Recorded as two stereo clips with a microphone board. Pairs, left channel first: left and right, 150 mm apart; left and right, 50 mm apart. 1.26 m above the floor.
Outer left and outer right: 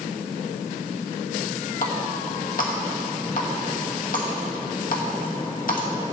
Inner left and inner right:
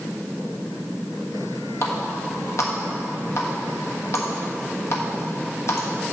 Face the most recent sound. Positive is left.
turn(degrees=65)  # may be behind; listen again after turning